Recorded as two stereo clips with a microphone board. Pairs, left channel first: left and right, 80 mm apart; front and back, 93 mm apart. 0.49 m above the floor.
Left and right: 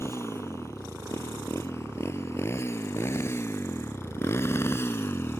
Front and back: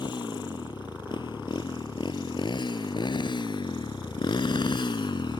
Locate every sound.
0.0 s a motorcycle: 35° left; by 5.4 s 30° left